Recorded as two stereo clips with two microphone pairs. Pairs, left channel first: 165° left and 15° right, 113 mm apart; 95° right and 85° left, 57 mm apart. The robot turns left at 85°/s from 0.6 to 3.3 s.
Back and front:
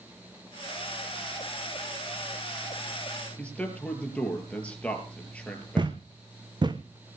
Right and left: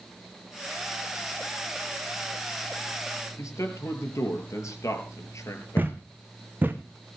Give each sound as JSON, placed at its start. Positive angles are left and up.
{"t": 3.4, "sound": "a man speaking", "azimuth_deg": -115, "distance_m": 5.0}
{"t": 5.8, "sound": "a thud", "azimuth_deg": 30, "distance_m": 1.4}